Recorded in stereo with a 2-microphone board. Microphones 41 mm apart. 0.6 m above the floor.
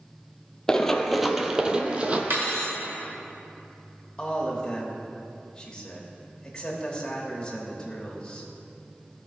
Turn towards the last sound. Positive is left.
turn(degrees=20)  # may be behind; listen again after turning